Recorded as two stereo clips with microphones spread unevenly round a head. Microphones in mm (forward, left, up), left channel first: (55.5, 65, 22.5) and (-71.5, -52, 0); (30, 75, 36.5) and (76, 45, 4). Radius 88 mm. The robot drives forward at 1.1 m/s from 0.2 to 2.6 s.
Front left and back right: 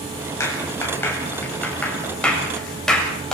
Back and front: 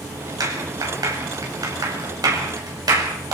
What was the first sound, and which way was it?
A clap, 30° right.